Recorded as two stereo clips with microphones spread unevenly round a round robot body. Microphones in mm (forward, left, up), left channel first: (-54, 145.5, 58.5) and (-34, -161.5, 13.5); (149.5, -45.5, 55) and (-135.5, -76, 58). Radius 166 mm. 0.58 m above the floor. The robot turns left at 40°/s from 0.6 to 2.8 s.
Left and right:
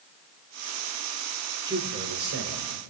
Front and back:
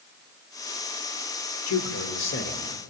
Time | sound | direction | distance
1.7 | a man speaking | 10° right | 2.5 m